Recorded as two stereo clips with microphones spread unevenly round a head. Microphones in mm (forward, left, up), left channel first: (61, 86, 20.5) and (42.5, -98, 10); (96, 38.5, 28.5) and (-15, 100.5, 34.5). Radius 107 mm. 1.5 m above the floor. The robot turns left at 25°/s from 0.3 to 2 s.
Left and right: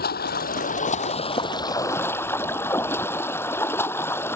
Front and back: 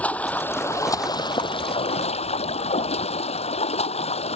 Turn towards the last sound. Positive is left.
turn(degrees=5)